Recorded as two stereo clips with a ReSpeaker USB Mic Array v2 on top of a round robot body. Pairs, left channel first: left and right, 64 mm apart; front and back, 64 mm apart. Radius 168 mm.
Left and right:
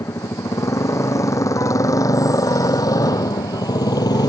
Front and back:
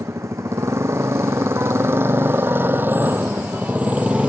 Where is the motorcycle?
135° left; by 4.3 s 105° left.